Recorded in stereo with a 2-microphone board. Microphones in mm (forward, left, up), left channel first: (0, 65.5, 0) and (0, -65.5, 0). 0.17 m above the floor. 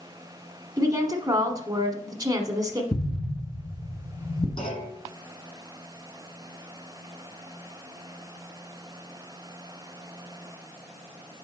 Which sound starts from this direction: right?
A woman speaking, at 0.8 s.